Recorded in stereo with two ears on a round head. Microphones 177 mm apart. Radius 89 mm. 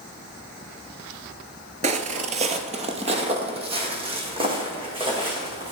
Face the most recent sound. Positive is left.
turn(degrees=-25)  # may be behind; listen again after turning